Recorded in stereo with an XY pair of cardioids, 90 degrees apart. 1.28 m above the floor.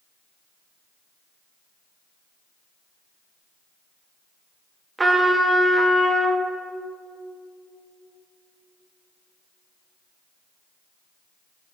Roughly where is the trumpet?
Ahead right.